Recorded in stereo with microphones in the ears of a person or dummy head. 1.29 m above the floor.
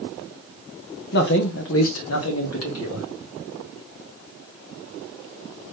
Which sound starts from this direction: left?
A man speaking, at 1.1 s.